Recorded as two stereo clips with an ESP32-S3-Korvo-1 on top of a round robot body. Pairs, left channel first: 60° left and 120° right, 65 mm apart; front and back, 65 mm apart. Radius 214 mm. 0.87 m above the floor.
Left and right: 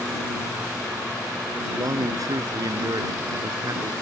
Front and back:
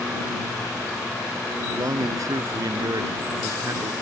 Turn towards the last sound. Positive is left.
turn(degrees=-145)